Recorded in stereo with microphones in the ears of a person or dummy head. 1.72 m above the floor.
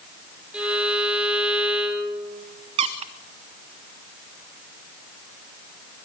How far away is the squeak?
About 0.9 m.